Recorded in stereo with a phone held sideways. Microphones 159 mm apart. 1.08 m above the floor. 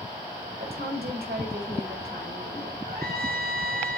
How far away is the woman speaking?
About 5.5 m.